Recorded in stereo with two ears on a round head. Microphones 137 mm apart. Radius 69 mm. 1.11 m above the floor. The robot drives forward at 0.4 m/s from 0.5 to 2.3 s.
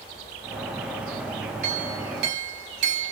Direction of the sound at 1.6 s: 80° right.